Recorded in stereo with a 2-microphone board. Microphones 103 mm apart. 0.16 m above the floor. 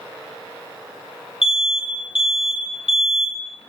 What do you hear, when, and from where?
1.4 s an alarm: 70° left (ahead or behind), 6.5 m